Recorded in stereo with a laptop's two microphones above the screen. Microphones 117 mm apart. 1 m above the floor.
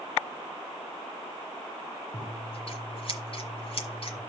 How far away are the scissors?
About 1.4 m.